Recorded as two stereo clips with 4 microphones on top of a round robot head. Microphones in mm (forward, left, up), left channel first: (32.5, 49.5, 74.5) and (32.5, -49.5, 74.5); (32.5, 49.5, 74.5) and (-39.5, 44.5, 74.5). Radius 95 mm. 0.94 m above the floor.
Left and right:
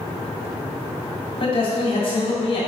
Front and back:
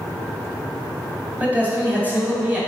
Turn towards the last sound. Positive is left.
turn(degrees=115)